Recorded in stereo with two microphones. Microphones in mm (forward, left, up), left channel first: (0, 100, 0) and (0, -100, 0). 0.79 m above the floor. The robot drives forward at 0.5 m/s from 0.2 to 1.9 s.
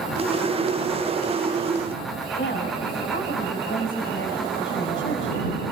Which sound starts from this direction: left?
A woman speaking, at 2.4 s.